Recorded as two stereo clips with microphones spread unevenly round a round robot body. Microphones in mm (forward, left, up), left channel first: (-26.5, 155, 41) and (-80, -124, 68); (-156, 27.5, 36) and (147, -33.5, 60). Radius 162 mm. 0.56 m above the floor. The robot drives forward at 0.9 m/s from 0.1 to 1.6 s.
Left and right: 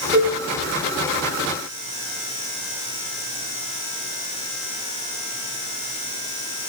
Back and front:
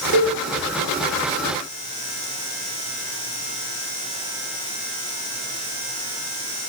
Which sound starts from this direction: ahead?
A cowbell, at 0.1 s.